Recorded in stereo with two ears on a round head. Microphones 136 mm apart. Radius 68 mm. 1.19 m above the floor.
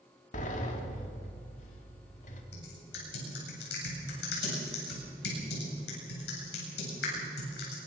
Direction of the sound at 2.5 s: 80° left.